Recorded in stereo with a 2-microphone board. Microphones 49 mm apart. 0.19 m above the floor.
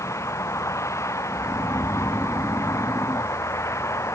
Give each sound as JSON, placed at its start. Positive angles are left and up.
{"t": 0.0, "sound": "a vehicle", "side_deg": 80}
{"t": 1.3, "sound": "snoring", "side_deg": -60}